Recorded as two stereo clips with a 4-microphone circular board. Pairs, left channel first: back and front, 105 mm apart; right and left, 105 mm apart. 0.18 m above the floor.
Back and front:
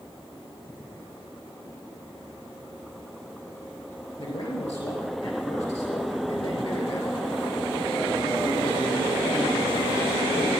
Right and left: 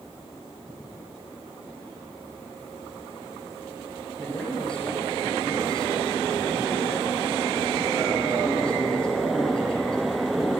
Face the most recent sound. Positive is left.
turn(degrees=-170)